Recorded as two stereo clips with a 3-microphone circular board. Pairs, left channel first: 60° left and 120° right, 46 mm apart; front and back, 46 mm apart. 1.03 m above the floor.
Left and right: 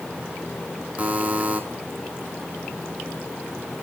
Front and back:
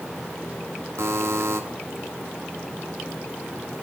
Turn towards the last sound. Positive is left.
turn(degrees=180)